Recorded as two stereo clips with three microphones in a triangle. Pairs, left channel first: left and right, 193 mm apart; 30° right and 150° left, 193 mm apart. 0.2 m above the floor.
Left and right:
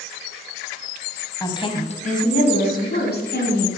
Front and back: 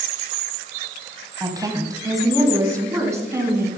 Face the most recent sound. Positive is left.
turn(degrees=75)